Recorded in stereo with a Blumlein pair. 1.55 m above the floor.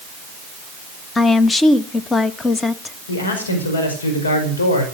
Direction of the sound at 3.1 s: 70° left.